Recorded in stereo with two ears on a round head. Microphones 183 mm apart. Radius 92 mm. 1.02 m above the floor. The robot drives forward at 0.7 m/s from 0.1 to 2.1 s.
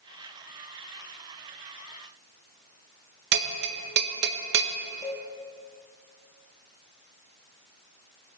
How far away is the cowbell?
About 1.3 m.